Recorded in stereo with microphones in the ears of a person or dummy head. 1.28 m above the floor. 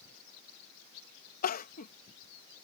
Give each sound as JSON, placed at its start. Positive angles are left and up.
{"t": 1.4, "sound": "crying", "side_deg": 45}